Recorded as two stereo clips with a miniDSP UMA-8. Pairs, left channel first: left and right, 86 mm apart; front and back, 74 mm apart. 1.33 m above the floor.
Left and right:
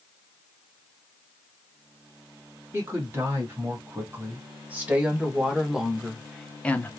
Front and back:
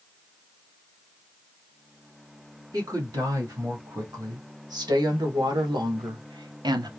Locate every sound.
2.7 s a woman speaking: 150° right, 2.5 m; by 6.9 s 155° left, 0.8 m